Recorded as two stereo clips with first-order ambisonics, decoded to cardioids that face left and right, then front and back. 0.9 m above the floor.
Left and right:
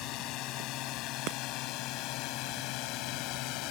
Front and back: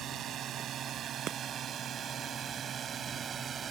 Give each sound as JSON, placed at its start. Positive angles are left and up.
{"t": 0.0, "sound": "a drone", "azimuth_deg": 125}
{"t": 1.3, "sound": "breaking glass", "azimuth_deg": -125}